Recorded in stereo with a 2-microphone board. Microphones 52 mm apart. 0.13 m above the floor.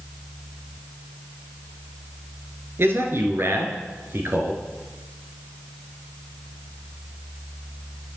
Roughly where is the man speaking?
Right.